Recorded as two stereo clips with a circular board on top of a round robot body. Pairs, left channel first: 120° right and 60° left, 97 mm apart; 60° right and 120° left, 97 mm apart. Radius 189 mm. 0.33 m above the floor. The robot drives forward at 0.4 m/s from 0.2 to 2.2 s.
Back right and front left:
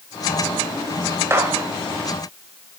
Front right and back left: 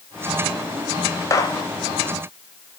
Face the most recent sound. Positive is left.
turn(degrees=-5)